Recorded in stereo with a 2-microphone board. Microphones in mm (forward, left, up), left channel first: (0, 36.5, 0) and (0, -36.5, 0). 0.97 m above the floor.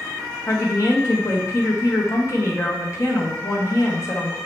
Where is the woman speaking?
45° left (ahead or behind), 1.1 m.